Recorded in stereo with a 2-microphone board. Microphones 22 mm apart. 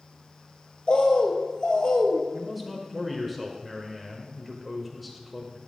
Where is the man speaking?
Centre (ahead or behind), 1.0 m.